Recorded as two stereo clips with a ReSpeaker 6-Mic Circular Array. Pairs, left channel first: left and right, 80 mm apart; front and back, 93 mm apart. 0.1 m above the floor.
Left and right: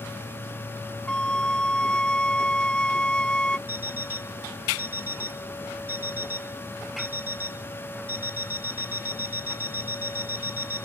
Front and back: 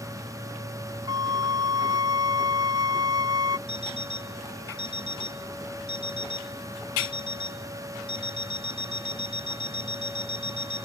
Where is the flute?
165° left.